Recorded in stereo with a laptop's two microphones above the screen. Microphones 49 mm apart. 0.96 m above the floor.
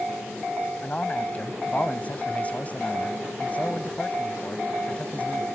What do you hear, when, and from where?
0.8 s a man speaking: 30° left (ahead or behind)